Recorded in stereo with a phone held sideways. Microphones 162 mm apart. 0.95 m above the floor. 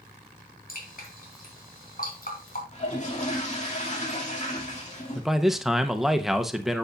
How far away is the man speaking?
About 0.7 m.